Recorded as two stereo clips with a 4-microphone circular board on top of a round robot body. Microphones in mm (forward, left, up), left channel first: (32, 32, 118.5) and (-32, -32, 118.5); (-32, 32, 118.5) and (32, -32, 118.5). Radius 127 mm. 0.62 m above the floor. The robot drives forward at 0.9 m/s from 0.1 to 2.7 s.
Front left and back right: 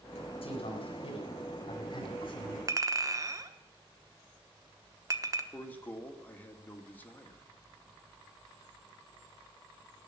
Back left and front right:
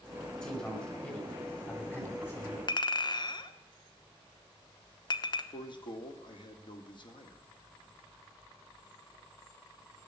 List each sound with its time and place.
0.4 s a man speaking: 55° left, 5.5 m; by 2.6 s 75° left, 4.5 m
2.7 s a clink: 170° left, 1.1 m
5.5 s a man speaking: 115° left, 2 m